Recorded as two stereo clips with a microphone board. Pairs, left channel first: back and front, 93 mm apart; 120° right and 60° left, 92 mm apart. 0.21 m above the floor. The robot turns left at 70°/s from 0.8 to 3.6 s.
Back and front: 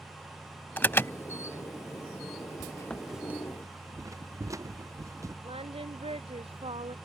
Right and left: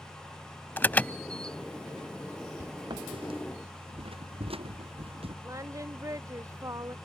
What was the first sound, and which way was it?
An alarm, 150° right.